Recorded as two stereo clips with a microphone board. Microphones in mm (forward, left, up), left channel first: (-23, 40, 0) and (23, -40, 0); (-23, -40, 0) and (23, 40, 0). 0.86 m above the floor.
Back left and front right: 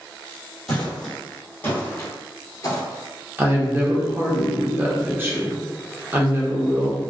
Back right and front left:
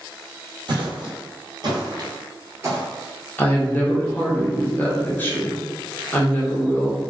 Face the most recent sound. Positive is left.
turn(degrees=-85)